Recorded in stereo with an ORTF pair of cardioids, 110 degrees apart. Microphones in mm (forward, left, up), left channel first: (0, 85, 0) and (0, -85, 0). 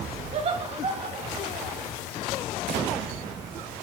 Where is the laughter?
40° right, 2 m; by 1.9 s 30° right, 3 m.